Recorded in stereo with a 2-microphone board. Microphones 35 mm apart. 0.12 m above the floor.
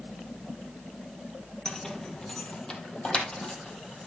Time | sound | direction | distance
1.6 | keys jangling | 10° left (ahead or behind) | 1.7 m